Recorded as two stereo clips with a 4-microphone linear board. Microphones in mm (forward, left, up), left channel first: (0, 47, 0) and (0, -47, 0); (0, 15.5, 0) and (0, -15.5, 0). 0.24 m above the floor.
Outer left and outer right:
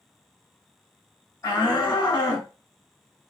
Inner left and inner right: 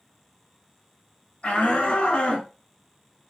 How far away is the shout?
About 1.2 m.